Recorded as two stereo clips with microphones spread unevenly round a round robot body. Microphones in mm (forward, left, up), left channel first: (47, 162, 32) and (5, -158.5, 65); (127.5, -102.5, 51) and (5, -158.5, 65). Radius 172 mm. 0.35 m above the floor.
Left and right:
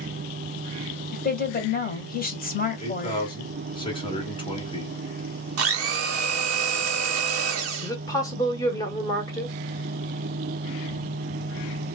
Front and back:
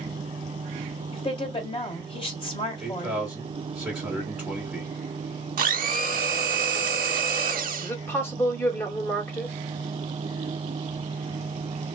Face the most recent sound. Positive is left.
turn(degrees=40)